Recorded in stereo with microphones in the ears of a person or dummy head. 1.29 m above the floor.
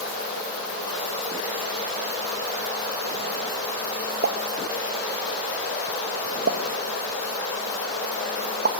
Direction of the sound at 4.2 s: 55° right (ahead or behind).